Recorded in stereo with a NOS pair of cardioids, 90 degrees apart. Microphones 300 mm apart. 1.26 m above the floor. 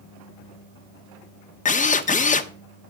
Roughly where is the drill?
Ahead left.